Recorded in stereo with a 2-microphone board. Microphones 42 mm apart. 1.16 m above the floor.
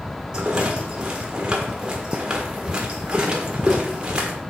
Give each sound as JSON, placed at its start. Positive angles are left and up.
{"t": 0.3, "sound": "a rattle", "side_deg": -20, "distance_m": 1.4}